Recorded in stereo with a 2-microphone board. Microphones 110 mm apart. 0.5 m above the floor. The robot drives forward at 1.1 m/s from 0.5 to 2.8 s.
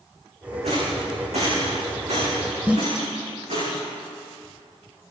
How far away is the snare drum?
About 1.1 m.